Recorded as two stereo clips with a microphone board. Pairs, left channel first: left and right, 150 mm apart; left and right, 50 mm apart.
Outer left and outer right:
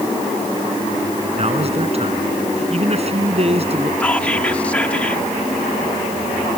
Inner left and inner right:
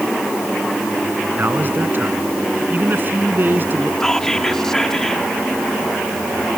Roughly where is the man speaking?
Right.